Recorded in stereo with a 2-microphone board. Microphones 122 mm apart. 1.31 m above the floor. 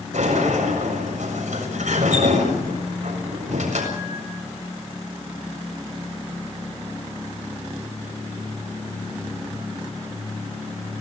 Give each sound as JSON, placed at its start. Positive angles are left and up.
{"t": 0.1, "sound": "a sliding door", "side_deg": -90, "distance_m": 7.5}